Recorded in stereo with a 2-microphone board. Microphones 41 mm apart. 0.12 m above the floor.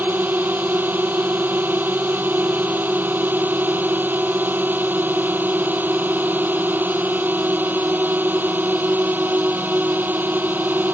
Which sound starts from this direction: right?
A drone, at 0.0 s.